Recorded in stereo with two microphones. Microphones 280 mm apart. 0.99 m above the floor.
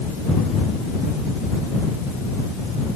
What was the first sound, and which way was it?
Only background noise.